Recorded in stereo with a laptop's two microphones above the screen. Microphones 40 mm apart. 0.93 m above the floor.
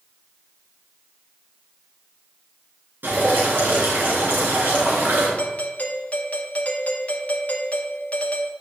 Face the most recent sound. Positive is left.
turn(degrees=40)  # may be behind; listen again after turning